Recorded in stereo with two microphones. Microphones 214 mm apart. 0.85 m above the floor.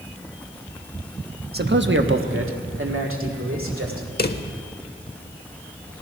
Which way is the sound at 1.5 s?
45° right (ahead or behind).